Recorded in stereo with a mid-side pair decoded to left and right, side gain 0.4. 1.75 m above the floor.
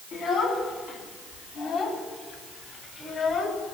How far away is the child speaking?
About 8.5 m.